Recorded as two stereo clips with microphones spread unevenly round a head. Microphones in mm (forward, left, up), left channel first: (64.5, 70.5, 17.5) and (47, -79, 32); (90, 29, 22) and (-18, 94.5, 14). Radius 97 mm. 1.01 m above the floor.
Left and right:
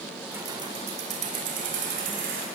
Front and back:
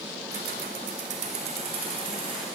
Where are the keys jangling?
175° right, 1.7 m; by 2.5 s 140° right, 4.5 m.